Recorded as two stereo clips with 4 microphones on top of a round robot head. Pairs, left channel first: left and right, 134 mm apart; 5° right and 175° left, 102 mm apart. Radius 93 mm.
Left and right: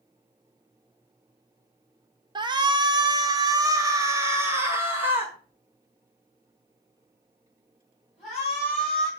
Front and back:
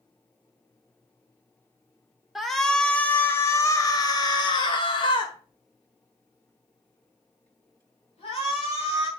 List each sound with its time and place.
2.4 s a shout: 100° right, 1.3 m; by 9.1 s straight ahead, 3.5 m